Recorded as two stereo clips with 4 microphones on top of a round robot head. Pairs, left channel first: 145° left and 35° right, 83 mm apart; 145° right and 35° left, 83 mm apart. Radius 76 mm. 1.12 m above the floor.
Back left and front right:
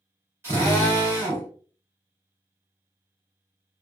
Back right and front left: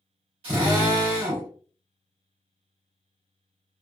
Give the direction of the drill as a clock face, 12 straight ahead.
11 o'clock.